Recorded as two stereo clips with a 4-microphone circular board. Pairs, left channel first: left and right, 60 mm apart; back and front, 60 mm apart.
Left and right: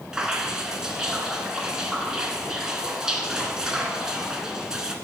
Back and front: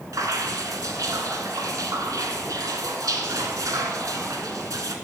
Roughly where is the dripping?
Ahead.